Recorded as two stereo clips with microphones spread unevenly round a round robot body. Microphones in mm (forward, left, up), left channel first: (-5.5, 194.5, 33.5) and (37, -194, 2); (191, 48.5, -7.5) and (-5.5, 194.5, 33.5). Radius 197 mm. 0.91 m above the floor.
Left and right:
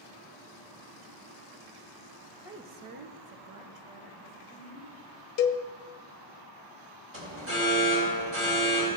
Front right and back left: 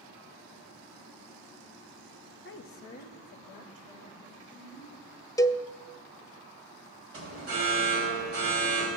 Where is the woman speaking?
Straight ahead, 0.8 m; by 4.9 s 90° right, 3.5 m.